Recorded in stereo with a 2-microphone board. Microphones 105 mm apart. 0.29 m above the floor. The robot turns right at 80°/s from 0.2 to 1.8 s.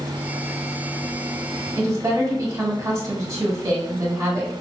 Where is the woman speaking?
30° right (ahead or behind), 1.2 m.